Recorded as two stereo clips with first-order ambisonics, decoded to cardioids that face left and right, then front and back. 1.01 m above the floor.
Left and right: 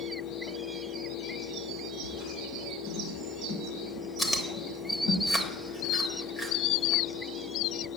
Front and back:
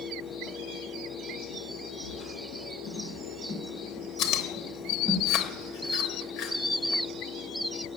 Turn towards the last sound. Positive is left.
turn(degrees=15)